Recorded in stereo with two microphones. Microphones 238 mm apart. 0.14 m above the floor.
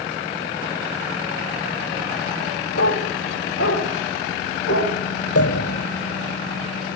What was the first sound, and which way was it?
A dog barking, 85° left.